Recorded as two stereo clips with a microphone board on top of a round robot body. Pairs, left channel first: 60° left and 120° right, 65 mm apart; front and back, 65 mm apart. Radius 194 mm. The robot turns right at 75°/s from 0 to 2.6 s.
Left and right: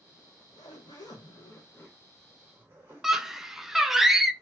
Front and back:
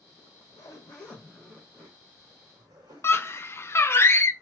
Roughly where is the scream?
Ahead right.